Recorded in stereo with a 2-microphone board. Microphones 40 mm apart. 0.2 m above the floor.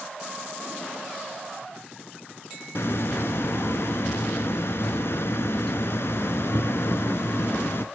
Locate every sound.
2.8 s a hiss: 70° left (ahead or behind), 0.5 m